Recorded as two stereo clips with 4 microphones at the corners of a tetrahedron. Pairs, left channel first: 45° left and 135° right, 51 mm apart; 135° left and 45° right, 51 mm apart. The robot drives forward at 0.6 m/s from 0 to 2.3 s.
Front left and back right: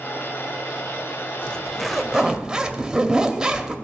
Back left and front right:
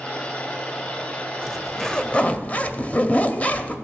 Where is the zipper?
20° left, 0.6 m; by 3.8 s 165° left, 0.6 m.